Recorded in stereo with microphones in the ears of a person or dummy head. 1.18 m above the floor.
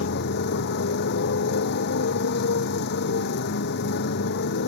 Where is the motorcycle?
55° left (ahead or behind).